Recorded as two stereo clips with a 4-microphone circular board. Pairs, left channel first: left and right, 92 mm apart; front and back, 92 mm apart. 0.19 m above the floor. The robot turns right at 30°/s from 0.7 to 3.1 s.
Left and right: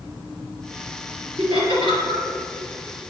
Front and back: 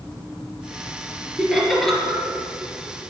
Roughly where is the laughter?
Right.